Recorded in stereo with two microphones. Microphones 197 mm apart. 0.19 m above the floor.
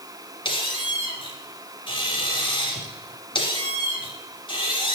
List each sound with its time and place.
0.5 s a squeak: 25° left (ahead or behind), 1.4 m